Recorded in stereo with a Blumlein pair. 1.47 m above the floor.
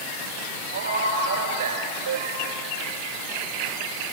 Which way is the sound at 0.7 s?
70° right.